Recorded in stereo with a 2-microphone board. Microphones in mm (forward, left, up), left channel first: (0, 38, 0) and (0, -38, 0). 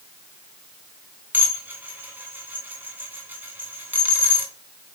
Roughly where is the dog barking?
I don't hear a dog barking.